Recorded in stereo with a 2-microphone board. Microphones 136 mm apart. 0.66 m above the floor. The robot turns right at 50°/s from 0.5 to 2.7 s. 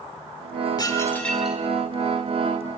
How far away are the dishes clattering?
About 1.3 m.